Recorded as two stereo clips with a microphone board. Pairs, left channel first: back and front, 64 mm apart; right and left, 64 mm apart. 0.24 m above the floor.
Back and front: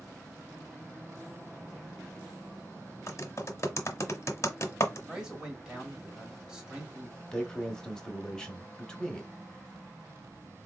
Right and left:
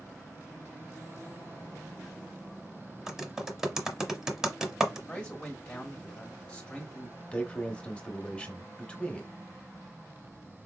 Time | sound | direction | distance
3.1 | typing on a keyboard | 170° left | 0.9 m
5.1 | a man speaking | 50° right | 1.6 m
7.3 | a man speaking | 120° right | 1.0 m